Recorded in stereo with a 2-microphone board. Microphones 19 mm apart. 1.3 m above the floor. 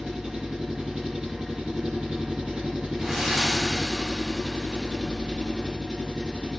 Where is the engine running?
70° right (ahead or behind), 2 m.